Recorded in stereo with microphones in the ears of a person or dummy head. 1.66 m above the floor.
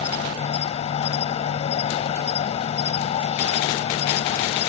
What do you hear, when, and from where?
0.0 s an insect: 30° left (ahead or behind)